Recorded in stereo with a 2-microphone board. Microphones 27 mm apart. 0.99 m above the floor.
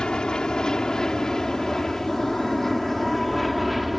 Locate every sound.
0.0 s an aircraft: 30° left (ahead or behind); by 4.0 s 5° right (ahead or behind)